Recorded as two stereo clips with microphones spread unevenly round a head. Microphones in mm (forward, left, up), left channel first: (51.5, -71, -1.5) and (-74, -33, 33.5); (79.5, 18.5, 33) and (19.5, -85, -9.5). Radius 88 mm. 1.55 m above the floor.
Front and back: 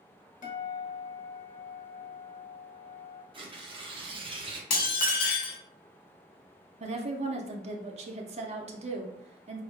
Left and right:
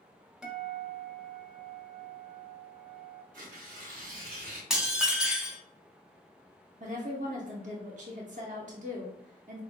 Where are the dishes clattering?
25° right, 0.9 m.